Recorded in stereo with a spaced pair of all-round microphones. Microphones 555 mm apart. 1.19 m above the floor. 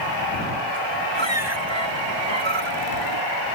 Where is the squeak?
55° right (ahead or behind).